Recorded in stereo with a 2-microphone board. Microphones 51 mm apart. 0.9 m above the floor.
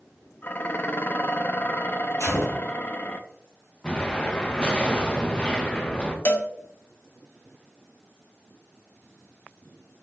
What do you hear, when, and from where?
0.4 s dishes clattering: 40° left (ahead or behind), 0.6 m
2.2 s a gunshot: 75° left (ahead or behind), 3 m
3.8 s an explosion: 20° left (ahead or behind), 1.1 m
6.2 s a cowbell: 45° left (ahead or behind), 0.7 m